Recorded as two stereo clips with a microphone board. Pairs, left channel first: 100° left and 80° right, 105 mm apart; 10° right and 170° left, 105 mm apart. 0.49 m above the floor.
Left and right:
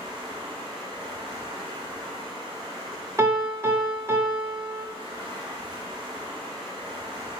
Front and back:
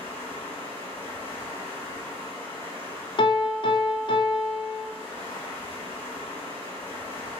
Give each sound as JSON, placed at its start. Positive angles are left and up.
{"t": 0.0, "sound": "running water", "azimuth_deg": -75, "distance_m": 1.8}
{"t": 3.2, "sound": "a piano", "azimuth_deg": -25, "distance_m": 0.6}